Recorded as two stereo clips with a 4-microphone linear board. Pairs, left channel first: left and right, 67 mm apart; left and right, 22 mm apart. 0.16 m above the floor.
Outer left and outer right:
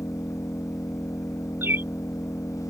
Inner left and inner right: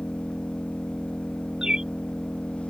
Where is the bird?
30° right (ahead or behind).